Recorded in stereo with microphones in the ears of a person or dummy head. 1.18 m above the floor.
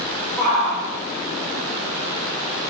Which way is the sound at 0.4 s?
5° right (ahead or behind).